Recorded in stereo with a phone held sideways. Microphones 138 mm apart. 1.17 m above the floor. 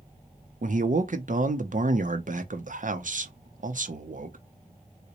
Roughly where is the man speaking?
Right.